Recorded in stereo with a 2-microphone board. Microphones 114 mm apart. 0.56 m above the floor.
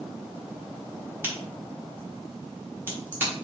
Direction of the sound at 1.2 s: 15° right (ahead or behind).